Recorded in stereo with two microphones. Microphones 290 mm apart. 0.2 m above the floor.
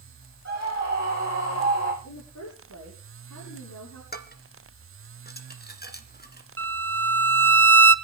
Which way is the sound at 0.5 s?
65° left (ahead or behind).